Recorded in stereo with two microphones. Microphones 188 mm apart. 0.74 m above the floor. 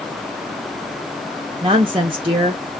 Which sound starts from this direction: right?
A woman speaking, at 1.6 s.